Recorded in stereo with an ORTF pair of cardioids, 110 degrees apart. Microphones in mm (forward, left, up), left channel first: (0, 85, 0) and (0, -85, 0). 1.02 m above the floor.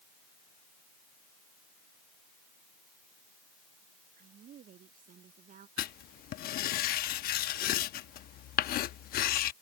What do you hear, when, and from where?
4.2 s a woman speaking: 55° right; by 5.7 s 50° right
5.8 s writing: 65° left